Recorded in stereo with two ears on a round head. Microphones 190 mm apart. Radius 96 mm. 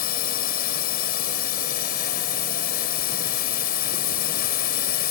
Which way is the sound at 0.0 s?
45° left (ahead or behind).